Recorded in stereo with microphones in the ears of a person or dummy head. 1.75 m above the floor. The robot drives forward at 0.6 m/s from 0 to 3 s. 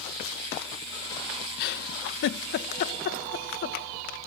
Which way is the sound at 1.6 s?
55° left (ahead or behind).